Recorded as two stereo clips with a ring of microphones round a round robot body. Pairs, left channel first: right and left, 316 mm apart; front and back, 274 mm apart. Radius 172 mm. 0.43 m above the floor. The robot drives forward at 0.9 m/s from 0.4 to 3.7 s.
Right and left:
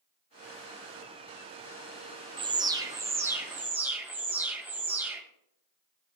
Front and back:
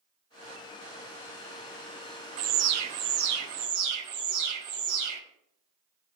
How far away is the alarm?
About 0.7 m.